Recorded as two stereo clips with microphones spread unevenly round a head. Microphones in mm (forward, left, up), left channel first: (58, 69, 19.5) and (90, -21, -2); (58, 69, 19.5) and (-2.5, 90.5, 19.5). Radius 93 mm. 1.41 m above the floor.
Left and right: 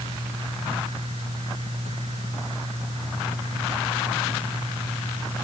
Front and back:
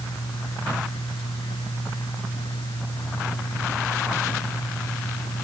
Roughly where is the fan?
Ahead right.